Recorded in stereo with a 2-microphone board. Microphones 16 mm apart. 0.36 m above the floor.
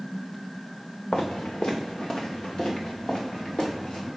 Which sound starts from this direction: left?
Footsteps, at 1.1 s.